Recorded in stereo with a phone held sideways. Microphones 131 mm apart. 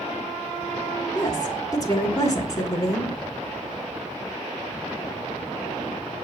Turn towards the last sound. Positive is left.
turn(degrees=25)  # may be behind; listen again after turning